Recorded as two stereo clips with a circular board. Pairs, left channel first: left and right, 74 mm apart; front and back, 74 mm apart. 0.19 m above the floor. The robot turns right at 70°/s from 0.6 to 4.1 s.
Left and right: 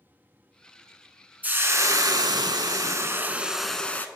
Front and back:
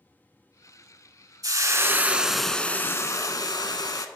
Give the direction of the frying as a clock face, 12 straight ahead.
5 o'clock.